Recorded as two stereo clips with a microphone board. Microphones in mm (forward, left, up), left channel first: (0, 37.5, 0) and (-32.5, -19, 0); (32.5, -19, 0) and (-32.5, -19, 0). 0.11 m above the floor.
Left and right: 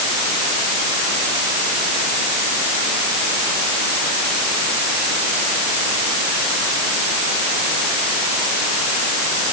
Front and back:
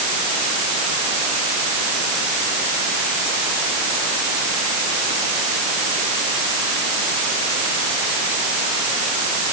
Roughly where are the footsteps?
I don't hear footsteps.